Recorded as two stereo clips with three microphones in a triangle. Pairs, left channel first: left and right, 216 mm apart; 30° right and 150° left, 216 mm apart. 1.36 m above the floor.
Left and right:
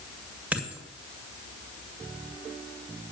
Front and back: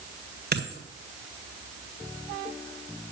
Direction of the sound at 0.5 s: 175° right.